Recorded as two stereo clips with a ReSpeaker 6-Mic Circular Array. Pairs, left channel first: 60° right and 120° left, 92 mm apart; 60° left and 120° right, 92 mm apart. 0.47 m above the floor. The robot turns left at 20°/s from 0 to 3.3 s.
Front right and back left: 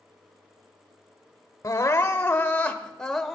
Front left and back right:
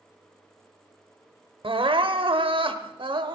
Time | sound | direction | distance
1.6 | crying | 115° right | 0.7 m